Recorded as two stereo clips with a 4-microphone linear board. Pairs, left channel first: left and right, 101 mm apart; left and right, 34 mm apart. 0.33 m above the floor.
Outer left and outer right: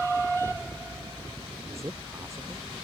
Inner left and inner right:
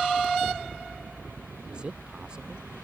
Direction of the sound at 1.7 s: 30° right (ahead or behind).